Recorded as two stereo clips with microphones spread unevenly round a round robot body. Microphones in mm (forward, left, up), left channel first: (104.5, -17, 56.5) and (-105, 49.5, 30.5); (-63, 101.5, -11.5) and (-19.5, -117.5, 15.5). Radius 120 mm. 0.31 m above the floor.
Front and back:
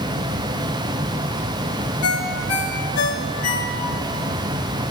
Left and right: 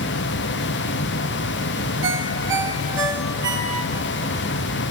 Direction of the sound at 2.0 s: Straight ahead.